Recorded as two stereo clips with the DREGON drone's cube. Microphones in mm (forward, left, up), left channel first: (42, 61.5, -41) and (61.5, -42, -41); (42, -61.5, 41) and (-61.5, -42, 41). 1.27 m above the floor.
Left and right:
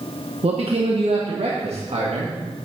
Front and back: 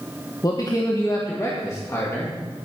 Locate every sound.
0.4 s a man speaking: 65° right, 1.2 m; by 2.4 s 75° right, 2.5 m